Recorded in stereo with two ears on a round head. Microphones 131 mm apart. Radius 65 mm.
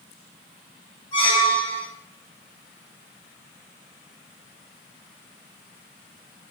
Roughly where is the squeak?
Left.